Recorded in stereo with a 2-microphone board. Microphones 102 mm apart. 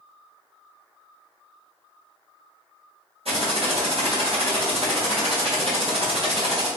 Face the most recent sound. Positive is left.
turn(degrees=-70)  # may be behind; listen again after turning